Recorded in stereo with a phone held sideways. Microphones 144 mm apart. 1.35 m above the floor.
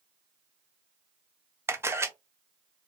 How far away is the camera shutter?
About 0.6 m.